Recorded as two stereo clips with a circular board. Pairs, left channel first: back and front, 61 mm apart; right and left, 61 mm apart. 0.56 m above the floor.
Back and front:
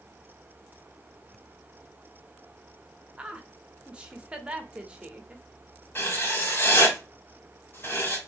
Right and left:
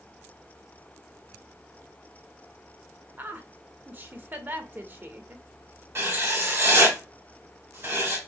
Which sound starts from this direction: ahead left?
A woman speaking, at 3.2 s.